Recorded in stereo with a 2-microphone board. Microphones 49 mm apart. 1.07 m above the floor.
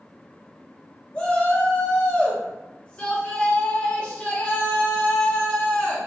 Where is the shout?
20° left (ahead or behind), 0.9 m.